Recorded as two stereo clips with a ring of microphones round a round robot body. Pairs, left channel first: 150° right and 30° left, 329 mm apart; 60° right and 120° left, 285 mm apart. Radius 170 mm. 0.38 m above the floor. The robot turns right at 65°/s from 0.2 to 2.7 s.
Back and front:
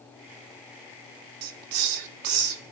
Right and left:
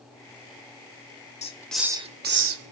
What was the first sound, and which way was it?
A hiss, 5° left.